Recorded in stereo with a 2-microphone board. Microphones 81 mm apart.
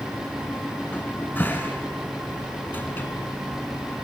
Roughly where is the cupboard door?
Left.